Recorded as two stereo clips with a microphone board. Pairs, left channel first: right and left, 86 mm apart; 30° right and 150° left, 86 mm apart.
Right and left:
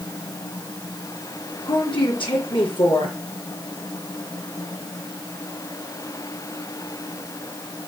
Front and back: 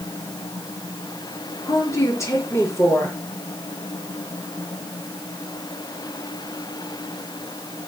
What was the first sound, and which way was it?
A woman speaking, 85° right.